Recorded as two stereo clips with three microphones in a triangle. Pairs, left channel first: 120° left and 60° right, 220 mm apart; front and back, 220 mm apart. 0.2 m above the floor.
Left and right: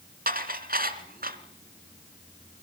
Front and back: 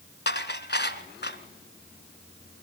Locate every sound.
0.3 s dishes clattering: 25° right, 1.5 m